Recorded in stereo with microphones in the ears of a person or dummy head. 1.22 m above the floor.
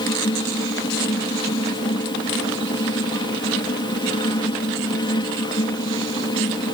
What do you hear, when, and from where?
0.0 s a fan: 25° left (ahead or behind)